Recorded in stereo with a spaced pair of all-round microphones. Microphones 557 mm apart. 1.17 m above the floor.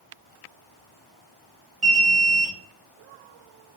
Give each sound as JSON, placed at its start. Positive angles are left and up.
{"t": 1.8, "sound": "an alarm", "side_deg": -60, "distance_m": 1.2}